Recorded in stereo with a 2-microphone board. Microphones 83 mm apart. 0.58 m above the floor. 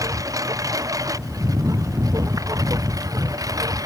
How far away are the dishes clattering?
I don't hear dishes clattering.